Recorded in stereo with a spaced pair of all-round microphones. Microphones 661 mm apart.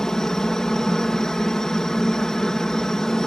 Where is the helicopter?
Centre (ahead or behind).